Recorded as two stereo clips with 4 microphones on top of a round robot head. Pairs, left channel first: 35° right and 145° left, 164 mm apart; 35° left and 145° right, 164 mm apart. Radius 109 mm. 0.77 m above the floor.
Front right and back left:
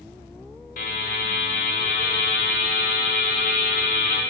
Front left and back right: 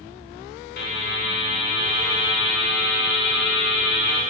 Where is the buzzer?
5° left, 1.1 m.